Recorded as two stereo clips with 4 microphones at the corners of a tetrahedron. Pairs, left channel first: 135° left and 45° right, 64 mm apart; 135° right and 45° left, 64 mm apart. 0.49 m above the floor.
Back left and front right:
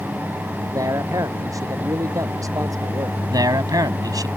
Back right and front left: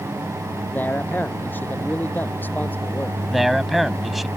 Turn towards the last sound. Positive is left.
turn(degrees=-45)